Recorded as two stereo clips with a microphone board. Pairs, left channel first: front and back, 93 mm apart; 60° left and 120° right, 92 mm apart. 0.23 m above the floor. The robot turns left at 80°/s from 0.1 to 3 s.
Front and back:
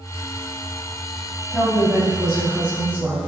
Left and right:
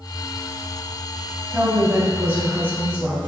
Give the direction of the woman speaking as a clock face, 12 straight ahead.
1 o'clock.